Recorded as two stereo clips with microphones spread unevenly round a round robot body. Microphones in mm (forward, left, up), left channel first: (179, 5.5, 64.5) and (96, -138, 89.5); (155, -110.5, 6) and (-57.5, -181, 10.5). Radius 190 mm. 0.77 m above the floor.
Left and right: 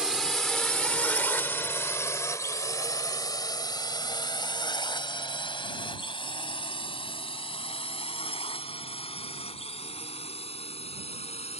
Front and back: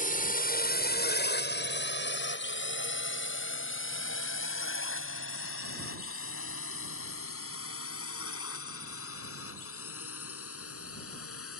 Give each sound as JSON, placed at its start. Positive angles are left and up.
{"t": 0.0, "sound": "a drone", "azimuth_deg": -30}